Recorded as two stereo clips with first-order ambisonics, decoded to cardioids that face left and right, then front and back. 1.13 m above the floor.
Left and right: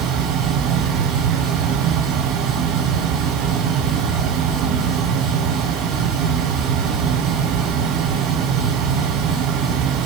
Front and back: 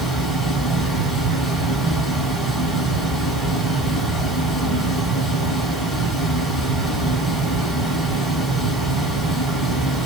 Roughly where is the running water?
Right.